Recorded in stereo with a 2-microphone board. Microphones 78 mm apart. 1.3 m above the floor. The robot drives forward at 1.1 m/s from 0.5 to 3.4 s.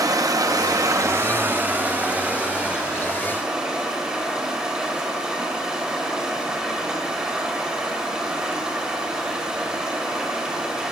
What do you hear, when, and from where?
0.0 s running water: 45° right (ahead or behind), 0.8 m; by 10.9 s 10° right (ahead or behind), 3 m